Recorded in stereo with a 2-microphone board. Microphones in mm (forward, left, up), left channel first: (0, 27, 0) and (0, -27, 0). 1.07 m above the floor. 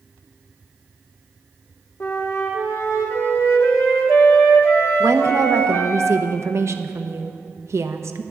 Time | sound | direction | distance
2.0 | a flute | 55° left (ahead or behind) | 1.9 m
5.0 | a woman speaking | 60° right (ahead or behind) | 0.9 m